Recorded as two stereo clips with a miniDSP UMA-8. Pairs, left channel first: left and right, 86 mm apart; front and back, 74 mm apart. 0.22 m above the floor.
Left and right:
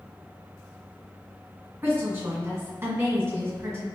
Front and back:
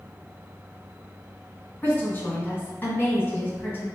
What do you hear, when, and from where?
1.8 s a woman speaking: 55° right, 1.6 m